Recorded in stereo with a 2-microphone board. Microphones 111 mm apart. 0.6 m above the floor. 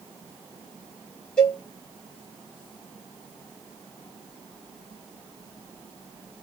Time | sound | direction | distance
1.4 | a cowbell | 5° left (ahead or behind) | 1.8 m